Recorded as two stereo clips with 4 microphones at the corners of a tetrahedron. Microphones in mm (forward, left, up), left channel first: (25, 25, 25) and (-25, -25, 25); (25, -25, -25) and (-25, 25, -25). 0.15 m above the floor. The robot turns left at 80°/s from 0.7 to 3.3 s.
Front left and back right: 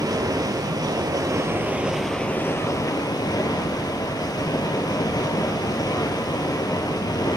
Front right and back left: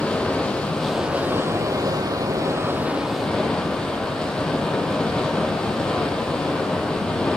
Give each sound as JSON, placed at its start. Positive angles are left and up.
{"t": 0.0, "sound": "running water", "azimuth_deg": -120, "distance_m": 1.1}